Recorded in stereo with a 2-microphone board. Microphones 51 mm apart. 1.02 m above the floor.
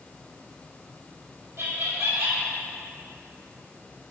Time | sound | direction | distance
1.6 | laughter | 70° right (ahead or behind) | 1.8 m